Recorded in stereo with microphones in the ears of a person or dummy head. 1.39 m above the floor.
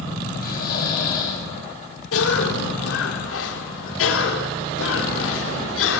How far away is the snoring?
About 7.5 m.